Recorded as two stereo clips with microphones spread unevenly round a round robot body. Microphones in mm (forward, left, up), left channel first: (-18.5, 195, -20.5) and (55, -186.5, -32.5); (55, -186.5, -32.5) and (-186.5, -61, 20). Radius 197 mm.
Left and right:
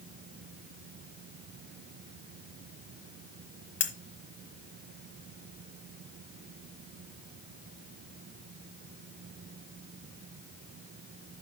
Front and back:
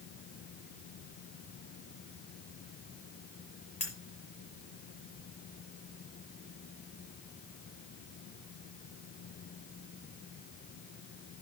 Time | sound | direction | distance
3.8 | cutlery clinking | 40° left | 1.1 m